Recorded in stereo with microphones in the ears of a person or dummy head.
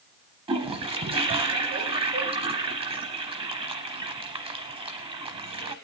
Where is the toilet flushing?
30° right (ahead or behind), 0.9 m.